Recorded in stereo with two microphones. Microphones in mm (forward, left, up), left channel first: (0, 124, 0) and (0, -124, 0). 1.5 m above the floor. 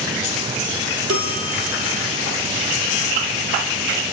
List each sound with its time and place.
1.1 s a bell: 70° right (ahead or behind), 2.5 m